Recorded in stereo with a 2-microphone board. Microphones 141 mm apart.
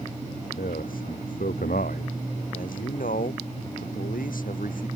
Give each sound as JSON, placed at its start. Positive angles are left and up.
{"t": 0.6, "sound": "a man speaking", "side_deg": 80}
{"t": 2.5, "sound": "a man speaking", "side_deg": 80}